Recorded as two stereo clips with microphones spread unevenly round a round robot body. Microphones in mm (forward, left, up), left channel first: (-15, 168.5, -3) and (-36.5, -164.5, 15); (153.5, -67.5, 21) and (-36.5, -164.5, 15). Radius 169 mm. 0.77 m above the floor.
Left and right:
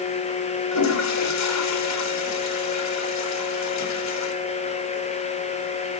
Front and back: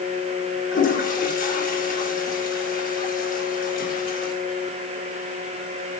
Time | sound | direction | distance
0.7 | a toilet flushing | 75° left | 1.5 m